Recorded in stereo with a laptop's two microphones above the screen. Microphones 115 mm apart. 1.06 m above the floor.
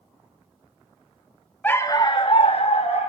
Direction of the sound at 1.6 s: 15° left (ahead or behind).